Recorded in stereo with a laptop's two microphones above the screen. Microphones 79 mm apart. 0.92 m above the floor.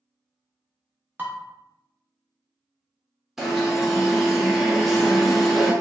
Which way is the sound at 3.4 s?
5° right (ahead or behind).